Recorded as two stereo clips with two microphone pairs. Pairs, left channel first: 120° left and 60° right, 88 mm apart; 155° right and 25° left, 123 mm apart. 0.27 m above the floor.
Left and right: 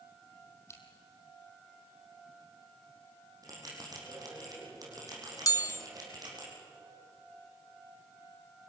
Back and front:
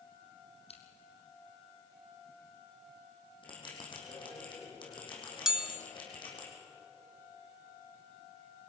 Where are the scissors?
175° left, 3 m.